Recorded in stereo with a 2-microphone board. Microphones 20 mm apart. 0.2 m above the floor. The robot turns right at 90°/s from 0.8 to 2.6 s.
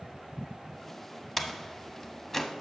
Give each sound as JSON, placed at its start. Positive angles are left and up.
{"t": 1.4, "sound": "a door slam", "side_deg": 15, "distance_m": 0.7}